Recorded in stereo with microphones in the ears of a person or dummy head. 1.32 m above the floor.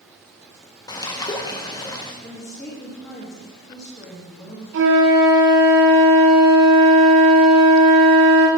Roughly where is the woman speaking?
Centre.